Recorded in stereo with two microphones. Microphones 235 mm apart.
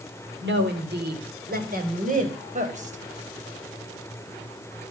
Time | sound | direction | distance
0.4 | a woman speaking | 50° right (ahead or behind) | 3.5 m